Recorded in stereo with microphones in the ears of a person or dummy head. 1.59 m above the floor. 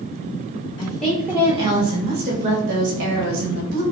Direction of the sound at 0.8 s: 15° left (ahead or behind).